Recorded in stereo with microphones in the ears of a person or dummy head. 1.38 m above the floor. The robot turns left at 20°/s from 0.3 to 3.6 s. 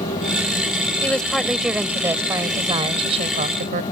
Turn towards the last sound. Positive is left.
turn(degrees=-45)